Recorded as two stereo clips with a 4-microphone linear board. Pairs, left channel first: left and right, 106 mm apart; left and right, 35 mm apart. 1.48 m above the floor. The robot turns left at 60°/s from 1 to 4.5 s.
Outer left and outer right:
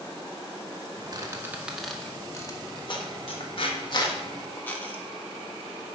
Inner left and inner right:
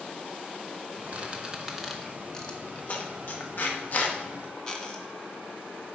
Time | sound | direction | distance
1.1 | a squeak | 35° right (ahead or behind) | 1.2 m